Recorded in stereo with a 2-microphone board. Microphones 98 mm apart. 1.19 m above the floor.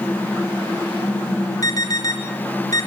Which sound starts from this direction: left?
An alarm, at 1.6 s.